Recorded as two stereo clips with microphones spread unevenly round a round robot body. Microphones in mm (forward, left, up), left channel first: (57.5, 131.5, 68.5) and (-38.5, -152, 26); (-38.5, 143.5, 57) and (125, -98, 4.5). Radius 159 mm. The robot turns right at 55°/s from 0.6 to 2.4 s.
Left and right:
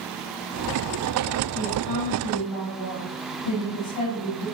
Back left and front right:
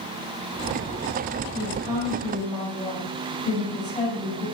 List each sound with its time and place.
1.5 s a woman speaking: 10° left, 6.5 m; by 4.5 s 55° left, 6.5 m